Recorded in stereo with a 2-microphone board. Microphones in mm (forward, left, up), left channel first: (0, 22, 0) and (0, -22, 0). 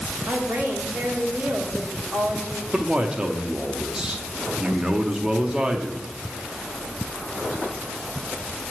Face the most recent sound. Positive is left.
turn(degrees=-20)  # may be behind; listen again after turning